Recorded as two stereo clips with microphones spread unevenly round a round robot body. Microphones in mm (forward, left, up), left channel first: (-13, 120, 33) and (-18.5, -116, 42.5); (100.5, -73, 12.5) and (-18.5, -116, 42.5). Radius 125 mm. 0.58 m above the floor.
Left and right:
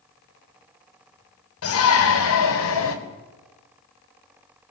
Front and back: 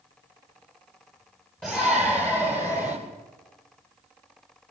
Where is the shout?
100° left, 4 m; by 3.0 s 80° left, 3 m.